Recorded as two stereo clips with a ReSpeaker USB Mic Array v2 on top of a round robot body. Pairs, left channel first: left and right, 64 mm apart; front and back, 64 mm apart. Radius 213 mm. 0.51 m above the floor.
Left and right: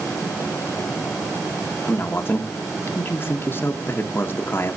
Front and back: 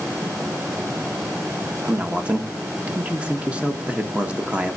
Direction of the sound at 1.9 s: 120° left.